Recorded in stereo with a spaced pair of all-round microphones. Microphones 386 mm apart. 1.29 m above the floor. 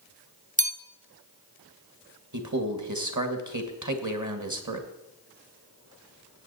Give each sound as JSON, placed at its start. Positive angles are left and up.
{"t": 0.6, "sound": "a bell", "side_deg": -20, "distance_m": 0.6}
{"t": 2.3, "sound": "a man speaking", "side_deg": -45, "distance_m": 1.4}